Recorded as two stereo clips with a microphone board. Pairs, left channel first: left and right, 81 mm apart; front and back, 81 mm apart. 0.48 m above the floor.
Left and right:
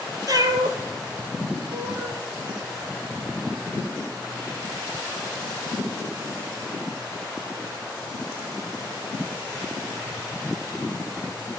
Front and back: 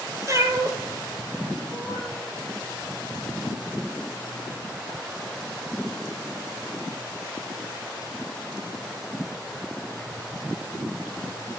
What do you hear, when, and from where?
0.3 s a cat meowing: 130° right, 1.4 m; by 2.2 s 120° right, 2.5 m